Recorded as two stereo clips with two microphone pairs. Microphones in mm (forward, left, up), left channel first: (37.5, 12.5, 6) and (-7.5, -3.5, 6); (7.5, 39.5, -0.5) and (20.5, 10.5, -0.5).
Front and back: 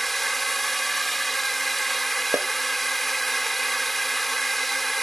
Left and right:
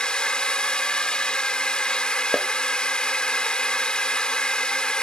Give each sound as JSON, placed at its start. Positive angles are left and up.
{"t": 0.0, "sound": "a drone", "azimuth_deg": 105}
{"t": 2.3, "sound": "a snare drum", "azimuth_deg": -155}